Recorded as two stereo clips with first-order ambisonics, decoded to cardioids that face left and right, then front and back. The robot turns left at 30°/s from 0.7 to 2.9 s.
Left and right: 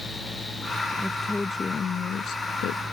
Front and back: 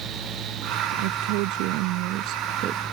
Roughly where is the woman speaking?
Behind.